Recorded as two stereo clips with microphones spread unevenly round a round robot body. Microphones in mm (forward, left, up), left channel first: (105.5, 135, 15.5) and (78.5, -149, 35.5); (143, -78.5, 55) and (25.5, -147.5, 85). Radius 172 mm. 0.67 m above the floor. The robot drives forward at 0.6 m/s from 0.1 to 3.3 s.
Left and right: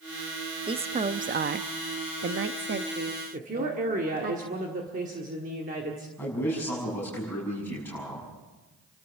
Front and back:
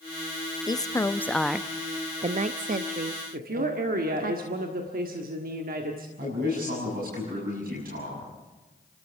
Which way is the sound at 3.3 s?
160° right.